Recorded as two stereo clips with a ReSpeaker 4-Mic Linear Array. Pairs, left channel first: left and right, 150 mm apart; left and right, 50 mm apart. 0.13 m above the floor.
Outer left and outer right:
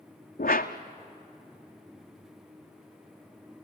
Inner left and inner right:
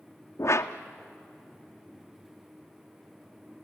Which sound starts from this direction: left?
A whoosh, at 0.4 s.